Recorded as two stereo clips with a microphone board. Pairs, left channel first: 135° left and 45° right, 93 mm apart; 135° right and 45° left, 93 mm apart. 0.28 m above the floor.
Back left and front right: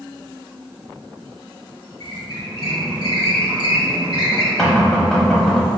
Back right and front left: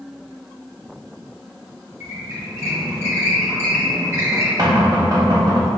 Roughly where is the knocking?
Ahead left.